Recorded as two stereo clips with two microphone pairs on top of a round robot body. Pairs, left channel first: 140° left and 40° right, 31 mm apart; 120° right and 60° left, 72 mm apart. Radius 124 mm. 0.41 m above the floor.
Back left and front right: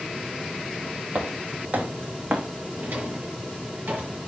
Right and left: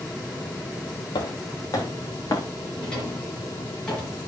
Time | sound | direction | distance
1.1 | footsteps | 80° right | 1.3 m
2.8 | a drawer | 40° right | 4.5 m